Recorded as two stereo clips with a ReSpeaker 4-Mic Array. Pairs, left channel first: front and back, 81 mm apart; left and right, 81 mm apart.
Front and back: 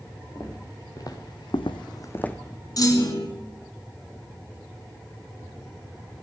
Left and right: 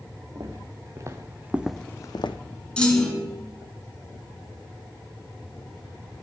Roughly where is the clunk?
Ahead.